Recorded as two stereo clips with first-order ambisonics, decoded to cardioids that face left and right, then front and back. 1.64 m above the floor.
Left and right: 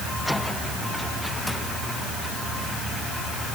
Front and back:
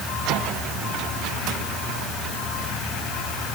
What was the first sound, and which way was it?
Only background noise.